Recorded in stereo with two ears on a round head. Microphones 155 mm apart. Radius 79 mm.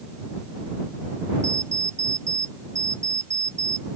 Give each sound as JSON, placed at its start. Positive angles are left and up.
{"t": 1.4, "sound": "an alarm clock", "side_deg": -15}